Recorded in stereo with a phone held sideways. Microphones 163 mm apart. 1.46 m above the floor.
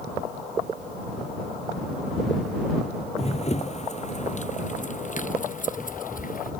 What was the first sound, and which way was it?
Running footsteps, 40° left (ahead or behind).